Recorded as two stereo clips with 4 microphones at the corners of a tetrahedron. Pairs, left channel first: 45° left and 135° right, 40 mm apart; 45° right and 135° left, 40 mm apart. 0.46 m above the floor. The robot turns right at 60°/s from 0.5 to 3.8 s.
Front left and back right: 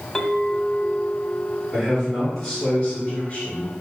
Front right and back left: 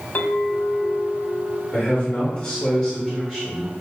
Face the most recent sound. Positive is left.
turn(degrees=45)